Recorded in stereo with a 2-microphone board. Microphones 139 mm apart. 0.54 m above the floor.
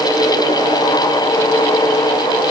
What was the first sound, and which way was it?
Only background noise.